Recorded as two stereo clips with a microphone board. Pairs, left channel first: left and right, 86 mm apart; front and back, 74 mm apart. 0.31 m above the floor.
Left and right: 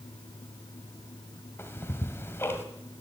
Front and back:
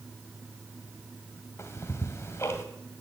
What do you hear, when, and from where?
1.6 s ticking: 40° left, 1.6 m